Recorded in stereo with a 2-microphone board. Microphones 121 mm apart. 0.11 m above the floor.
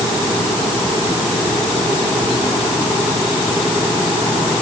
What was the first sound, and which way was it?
Only background noise.